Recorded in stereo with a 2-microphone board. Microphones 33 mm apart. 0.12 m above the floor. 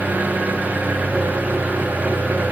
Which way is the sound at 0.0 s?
55° right (ahead or behind).